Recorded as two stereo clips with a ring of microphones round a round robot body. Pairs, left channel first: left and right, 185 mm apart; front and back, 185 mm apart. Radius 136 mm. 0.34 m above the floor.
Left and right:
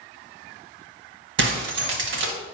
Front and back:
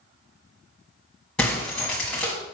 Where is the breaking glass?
85° right, 1.6 m.